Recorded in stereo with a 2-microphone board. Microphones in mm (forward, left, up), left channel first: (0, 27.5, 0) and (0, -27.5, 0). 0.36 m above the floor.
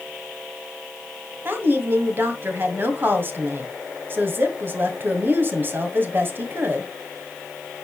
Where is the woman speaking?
40° right (ahead or behind), 2.0 m.